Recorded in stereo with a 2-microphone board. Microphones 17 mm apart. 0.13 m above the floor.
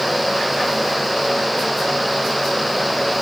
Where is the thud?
No thud in this recording.